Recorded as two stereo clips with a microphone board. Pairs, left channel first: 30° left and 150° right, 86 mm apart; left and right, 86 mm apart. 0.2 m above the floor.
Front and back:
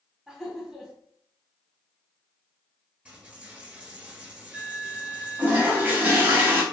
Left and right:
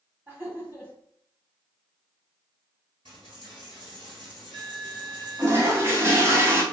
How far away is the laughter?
About 1.0 m.